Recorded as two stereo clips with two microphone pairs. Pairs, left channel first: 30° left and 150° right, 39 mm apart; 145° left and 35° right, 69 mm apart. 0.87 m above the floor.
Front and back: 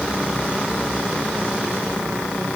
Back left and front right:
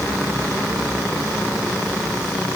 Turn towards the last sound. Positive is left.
No sound to turn to.